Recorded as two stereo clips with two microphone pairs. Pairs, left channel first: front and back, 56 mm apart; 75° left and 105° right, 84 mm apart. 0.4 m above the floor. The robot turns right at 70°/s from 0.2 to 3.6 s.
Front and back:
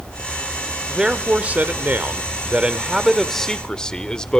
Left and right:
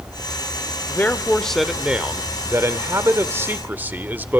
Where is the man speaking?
110° left, 0.8 m; by 4.4 s 60° right, 0.8 m.